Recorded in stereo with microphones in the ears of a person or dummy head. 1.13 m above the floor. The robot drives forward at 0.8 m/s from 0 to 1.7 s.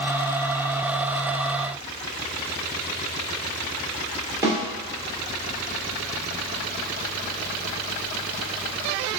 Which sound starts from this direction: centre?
A snare drum, at 4.4 s.